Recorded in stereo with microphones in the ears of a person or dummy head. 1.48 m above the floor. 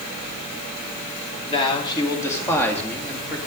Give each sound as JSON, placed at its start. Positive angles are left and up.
{"t": 1.5, "sound": "a man speaking", "side_deg": 30, "distance_m": 2.5}